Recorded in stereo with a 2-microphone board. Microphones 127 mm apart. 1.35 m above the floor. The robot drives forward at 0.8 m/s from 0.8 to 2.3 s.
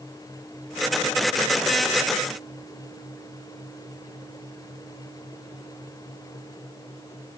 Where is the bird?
No bird in this recording.